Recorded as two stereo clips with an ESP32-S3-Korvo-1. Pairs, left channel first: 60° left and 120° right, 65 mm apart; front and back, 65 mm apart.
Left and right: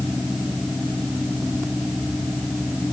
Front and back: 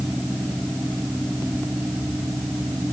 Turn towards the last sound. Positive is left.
No sound to turn to.